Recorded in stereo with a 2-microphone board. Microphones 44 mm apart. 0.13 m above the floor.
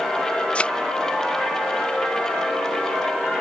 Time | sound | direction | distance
0.6 | a thud | 25° left (ahead or behind) | ?